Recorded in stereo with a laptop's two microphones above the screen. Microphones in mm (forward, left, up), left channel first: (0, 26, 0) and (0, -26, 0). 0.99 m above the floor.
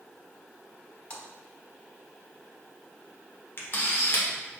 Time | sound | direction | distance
1.1 | a splash | 25° left (ahead or behind) | 1.0 m
3.6 | a camera shutter | 45° left (ahead or behind) | 0.7 m